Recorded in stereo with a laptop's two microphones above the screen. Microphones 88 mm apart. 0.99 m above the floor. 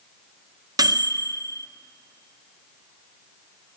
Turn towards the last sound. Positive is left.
turn(degrees=-45)  # may be behind; listen again after turning